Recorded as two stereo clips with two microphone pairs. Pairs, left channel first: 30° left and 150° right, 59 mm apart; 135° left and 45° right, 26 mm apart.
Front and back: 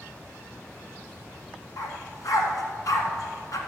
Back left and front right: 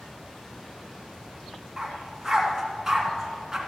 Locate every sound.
1.8 s a dog barking: 20° left, 1.7 m